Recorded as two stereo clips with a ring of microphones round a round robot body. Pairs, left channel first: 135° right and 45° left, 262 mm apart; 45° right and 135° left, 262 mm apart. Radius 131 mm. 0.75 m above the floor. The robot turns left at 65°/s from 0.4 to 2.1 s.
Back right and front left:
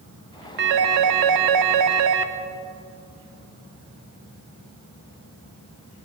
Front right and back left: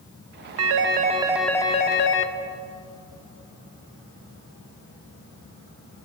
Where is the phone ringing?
100° left, 0.8 m; by 2.3 s straight ahead, 0.8 m.